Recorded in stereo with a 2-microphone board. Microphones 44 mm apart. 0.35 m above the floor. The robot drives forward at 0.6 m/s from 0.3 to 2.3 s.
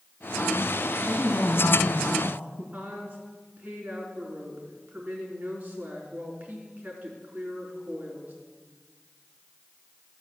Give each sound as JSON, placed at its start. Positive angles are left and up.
{"t": 1.1, "sound": "a man speaking", "side_deg": 40, "distance_m": 2.5}
{"t": 2.7, "sound": "a woman speaking", "side_deg": -35, "distance_m": 4.5}